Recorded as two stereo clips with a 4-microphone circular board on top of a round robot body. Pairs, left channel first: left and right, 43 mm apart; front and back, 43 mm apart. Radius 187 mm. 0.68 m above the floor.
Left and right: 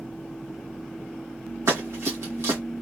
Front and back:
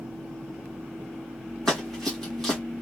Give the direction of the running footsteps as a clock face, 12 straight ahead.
3 o'clock.